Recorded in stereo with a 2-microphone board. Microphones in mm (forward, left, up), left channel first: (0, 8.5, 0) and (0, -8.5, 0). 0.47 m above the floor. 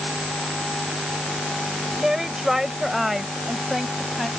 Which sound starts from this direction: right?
A woman speaking, at 2.0 s.